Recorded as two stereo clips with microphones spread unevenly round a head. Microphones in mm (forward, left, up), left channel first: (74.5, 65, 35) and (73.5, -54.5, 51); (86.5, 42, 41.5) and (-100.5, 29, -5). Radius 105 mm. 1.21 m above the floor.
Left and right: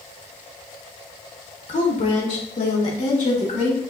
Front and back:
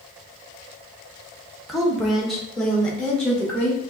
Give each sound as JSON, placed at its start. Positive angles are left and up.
{"t": 1.7, "sound": "a woman speaking", "azimuth_deg": 100, "distance_m": 1.1}